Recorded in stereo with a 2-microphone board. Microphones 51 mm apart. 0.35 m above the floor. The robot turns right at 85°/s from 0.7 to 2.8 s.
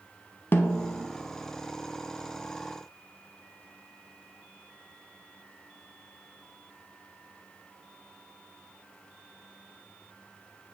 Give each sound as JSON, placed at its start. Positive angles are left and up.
{"t": 0.5, "sound": "a snare drum", "side_deg": 40, "distance_m": 0.6}